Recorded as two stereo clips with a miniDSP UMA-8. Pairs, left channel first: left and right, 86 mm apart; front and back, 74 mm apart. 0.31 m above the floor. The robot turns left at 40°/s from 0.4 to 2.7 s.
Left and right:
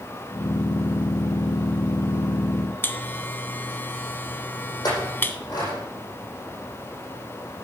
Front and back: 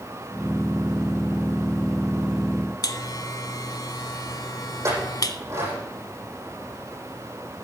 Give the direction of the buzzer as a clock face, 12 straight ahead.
11 o'clock.